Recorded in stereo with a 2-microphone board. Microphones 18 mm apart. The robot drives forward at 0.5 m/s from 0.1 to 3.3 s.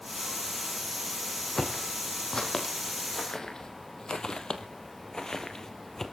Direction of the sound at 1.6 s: 50° left (ahead or behind).